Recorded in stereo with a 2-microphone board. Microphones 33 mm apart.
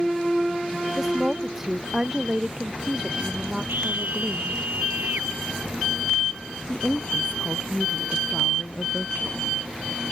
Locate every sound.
1.0 s a woman speaking: 15° right (ahead or behind); by 4.6 s 25° right (ahead or behind)
3.7 s a scream: 75° right (ahead or behind)
6.7 s a woman speaking: 50° left (ahead or behind)